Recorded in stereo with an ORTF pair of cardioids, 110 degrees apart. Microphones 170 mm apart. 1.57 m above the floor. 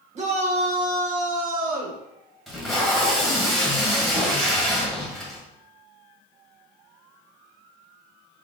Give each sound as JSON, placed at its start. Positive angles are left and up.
{"t": 0.1, "sound": "a shout", "azimuth_deg": -40, "distance_m": 1.8}
{"t": 2.5, "sound": "tape being pulled", "azimuth_deg": 0, "distance_m": 1.9}